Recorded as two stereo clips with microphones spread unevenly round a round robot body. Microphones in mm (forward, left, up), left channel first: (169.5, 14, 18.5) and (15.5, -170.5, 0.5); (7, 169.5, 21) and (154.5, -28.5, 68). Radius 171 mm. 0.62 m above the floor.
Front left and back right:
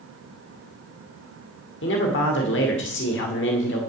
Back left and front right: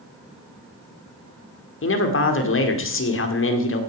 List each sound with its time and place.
1.8 s a man speaking: 105° left, 2 m